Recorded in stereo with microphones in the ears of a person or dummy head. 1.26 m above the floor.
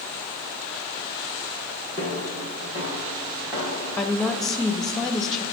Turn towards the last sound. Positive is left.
turn(degrees=5)  # may be behind; listen again after turning